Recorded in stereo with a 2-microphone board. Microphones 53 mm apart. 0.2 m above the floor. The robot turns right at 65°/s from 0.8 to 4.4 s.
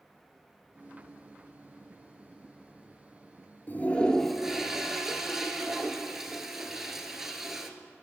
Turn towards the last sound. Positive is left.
turn(degrees=-175)